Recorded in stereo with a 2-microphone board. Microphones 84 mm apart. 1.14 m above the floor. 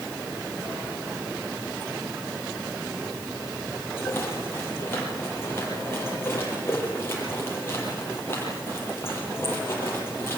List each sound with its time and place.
4.0 s a rattle: 30° left (ahead or behind), 7.5 m